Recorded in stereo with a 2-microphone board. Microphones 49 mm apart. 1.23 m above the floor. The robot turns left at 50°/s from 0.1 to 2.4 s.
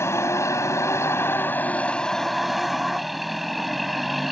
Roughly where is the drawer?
No drawer in this recording.